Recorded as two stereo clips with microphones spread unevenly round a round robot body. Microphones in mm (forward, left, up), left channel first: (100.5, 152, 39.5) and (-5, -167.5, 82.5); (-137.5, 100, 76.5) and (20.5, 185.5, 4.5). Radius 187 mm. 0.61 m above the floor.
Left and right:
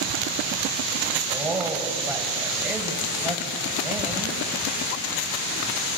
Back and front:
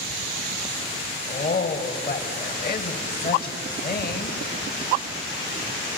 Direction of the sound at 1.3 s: 165° left.